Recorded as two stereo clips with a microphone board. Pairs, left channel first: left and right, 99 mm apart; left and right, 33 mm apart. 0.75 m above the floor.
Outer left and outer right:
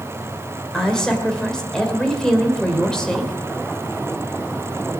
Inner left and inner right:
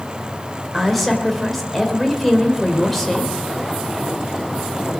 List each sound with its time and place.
0.7 s a woman speaking: 5° left (ahead or behind), 2.5 m